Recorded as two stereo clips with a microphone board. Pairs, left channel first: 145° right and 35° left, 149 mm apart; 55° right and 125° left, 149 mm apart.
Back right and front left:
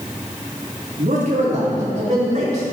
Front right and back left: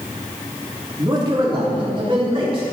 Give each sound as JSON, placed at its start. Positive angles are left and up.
{"t": 1.0, "sound": "a man speaking", "azimuth_deg": 65, "distance_m": 3.5}